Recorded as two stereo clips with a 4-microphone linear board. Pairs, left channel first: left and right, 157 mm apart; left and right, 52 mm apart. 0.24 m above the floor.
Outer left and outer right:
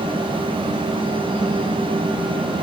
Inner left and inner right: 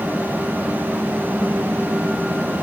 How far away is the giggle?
No giggle in this recording.